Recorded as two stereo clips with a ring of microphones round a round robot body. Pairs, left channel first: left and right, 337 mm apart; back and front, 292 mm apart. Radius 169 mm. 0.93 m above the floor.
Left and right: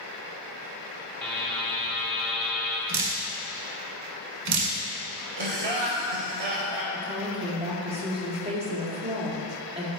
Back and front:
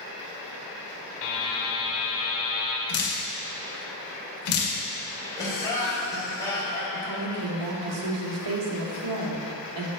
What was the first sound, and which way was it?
A buzzer, straight behind.